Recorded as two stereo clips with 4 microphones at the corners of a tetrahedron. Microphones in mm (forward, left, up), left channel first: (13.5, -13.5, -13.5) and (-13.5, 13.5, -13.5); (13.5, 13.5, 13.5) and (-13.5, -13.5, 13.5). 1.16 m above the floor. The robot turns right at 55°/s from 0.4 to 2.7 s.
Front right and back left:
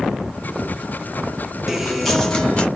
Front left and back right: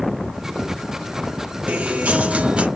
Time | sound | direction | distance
1.7 | a guitar | 145° right | 0.8 m